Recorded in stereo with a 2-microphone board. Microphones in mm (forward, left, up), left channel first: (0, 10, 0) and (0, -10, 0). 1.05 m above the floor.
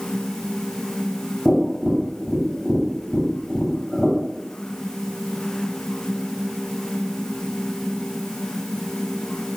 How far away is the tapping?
About 3 m.